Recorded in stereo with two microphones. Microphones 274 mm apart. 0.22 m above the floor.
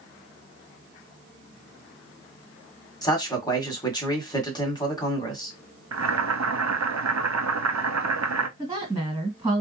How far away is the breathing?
No breathing in this recording.